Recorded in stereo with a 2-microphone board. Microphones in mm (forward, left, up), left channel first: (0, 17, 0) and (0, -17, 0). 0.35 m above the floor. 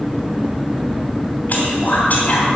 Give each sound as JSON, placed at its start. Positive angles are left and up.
{"t": 1.5, "sound": "whispering", "side_deg": 50, "distance_m": 2.5}